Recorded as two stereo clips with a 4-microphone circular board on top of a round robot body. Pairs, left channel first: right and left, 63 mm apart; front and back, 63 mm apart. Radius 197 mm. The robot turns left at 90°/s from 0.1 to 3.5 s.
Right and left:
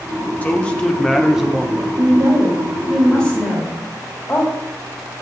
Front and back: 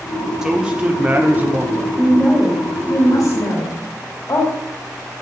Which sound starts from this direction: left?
A woman speaking, at 2.0 s.